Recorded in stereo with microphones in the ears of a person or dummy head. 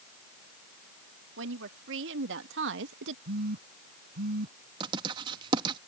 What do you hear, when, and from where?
1.4 s a woman speaking: 75° right (ahead or behind)
3.2 s a phone buzzing: 60° right (ahead or behind)
4.8 s writing: 30° right (ahead or behind)